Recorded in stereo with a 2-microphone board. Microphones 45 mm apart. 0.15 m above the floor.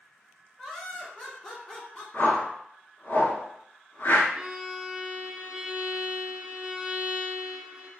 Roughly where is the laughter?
Centre.